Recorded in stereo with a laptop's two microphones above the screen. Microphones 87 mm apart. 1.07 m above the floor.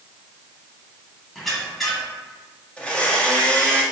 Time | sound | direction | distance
1.4 | a squeak | centre (ahead or behind) | 1.0 m
2.8 | a blender | 15° left (ahead or behind) | 0.8 m